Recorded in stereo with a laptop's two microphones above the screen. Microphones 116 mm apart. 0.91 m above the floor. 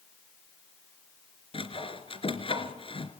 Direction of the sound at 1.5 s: 50° left (ahead or behind).